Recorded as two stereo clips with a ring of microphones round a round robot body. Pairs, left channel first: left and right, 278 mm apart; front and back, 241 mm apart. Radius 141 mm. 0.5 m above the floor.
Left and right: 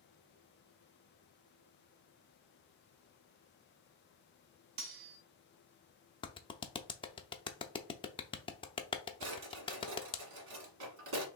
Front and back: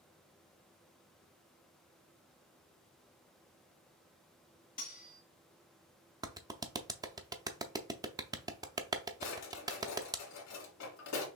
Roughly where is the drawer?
Ahead right.